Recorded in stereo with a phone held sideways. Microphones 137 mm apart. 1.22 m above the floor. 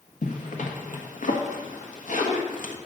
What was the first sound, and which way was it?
A zipper, 70° left (ahead or behind).